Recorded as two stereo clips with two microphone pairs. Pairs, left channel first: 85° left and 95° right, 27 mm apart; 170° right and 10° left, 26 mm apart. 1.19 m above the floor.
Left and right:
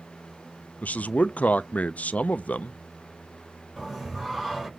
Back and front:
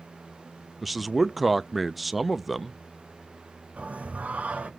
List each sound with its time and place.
0.8 s a man speaking: 105° left, 0.6 m
3.8 s singing: 10° right, 5.5 m